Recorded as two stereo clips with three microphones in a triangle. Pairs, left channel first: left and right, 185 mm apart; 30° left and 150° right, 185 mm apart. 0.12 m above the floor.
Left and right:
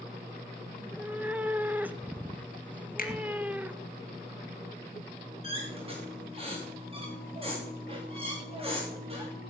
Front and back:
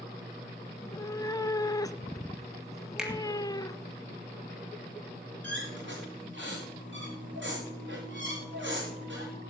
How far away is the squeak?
About 6 m.